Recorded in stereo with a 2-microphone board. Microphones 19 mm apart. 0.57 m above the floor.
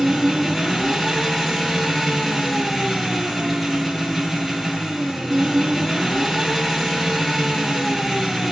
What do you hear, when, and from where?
0.0 s an engine running: centre (ahead or behind), 8.5 m